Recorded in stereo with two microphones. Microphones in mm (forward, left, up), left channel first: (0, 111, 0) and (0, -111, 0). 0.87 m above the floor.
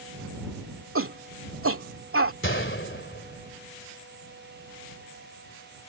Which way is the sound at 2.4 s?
60° left (ahead or behind).